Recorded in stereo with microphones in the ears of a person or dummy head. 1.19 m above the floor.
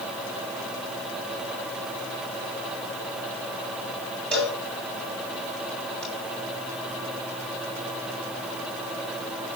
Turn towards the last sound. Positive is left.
turn(degrees=5)  # may be behind; listen again after turning